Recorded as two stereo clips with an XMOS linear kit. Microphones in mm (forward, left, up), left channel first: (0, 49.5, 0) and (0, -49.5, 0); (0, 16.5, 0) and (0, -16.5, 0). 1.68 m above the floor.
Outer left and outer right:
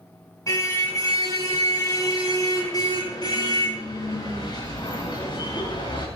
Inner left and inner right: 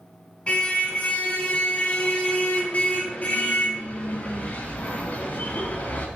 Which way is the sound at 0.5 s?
35° left (ahead or behind).